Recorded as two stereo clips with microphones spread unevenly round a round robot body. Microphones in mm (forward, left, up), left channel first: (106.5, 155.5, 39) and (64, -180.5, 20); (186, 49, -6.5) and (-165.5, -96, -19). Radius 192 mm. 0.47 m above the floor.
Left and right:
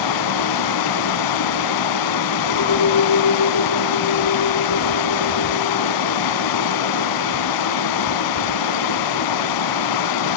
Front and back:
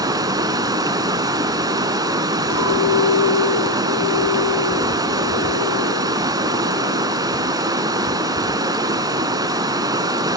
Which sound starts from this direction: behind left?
Running water, at 0.0 s.